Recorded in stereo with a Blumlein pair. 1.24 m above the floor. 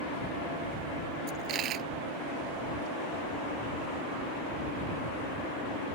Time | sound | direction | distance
1.3 | a dropped coin | 35° right | ?